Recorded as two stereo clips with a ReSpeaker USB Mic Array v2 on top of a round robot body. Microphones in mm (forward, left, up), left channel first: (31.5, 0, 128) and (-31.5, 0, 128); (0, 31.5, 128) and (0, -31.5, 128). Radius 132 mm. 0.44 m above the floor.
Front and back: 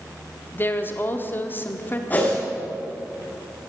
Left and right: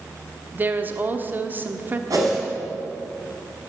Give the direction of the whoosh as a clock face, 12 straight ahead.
2 o'clock.